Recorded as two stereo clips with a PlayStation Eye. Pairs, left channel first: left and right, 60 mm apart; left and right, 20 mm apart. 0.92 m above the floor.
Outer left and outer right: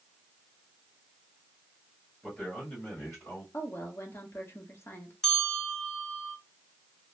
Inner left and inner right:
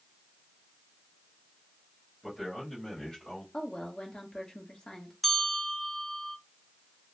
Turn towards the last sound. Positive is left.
turn(degrees=10)  # may be behind; listen again after turning